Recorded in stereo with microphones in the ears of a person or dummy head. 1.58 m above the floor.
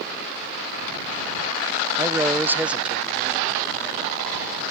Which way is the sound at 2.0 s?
15° right (ahead or behind).